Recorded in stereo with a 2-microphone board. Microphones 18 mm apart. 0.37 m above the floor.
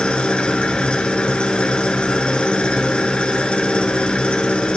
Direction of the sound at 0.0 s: 80° left.